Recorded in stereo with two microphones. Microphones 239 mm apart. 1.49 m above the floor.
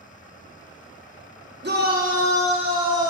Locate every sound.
1.6 s a shout: 45° right (ahead or behind), 1.0 m; by 3.1 s 15° right (ahead or behind), 1.6 m